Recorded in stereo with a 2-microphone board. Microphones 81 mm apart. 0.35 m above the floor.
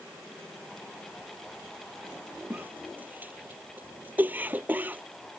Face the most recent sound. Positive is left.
turn(degrees=-20)  # may be behind; listen again after turning